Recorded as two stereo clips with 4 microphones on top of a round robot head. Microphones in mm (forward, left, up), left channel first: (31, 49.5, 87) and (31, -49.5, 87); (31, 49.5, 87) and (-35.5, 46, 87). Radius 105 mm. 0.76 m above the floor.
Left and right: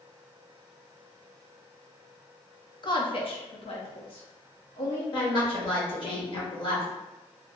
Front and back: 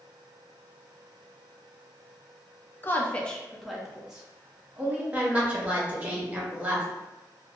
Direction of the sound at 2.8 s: 55° left.